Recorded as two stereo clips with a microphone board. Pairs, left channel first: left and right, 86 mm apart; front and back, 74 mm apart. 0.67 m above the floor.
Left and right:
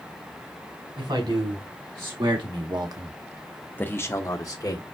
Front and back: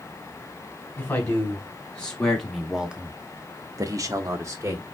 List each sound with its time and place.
1.0 s a man speaking: 70° right, 2.5 m; by 4.8 s 130° left, 1.8 m